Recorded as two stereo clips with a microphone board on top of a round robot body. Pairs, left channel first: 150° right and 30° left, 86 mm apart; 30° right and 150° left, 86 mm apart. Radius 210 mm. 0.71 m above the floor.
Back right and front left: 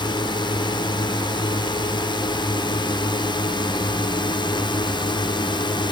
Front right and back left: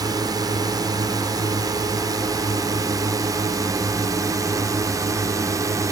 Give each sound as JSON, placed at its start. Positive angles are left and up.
{"t": 0.0, "sound": "a drone", "azimuth_deg": -170}